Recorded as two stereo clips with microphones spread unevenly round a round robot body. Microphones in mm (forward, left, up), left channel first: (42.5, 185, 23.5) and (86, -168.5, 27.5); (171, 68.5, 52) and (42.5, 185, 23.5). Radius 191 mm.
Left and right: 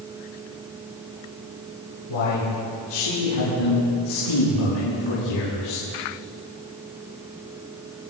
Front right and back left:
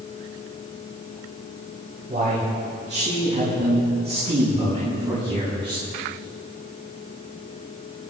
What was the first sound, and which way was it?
A man speaking, 95° left.